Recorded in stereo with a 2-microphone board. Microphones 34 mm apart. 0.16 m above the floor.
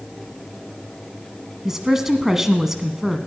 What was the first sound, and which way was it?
A woman speaking, 15° right (ahead or behind).